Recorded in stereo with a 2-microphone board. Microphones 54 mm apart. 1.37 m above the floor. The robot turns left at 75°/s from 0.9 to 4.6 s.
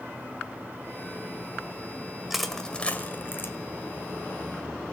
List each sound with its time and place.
2.3 s crushing: 10° right (ahead or behind), 1.4 m; by 3.5 s 45° left (ahead or behind), 1.4 m